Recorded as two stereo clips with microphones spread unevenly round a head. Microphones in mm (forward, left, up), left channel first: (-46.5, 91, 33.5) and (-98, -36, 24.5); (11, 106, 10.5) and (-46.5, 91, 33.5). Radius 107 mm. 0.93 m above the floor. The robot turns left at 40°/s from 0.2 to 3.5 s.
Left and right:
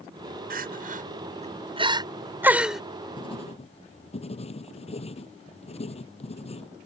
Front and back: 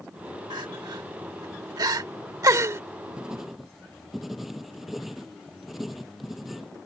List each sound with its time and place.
0.5 s crying: 110° right; by 2.8 s 160° left
3.2 s writing: 125° left; by 6.7 s 110° left